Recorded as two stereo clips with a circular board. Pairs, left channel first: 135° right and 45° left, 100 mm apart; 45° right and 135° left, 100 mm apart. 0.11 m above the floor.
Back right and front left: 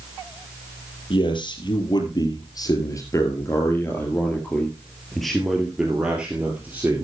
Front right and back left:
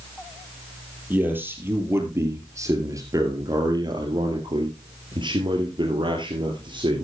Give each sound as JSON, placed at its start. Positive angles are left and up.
{"t": 1.1, "sound": "a man speaking", "azimuth_deg": -155, "distance_m": 3.0}